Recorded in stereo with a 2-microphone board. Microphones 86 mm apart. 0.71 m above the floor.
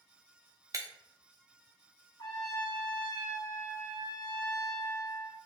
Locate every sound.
0.7 s breaking glass: 40° right (ahead or behind), 0.6 m
2.2 s a trumpet: 55° left (ahead or behind), 1.7 m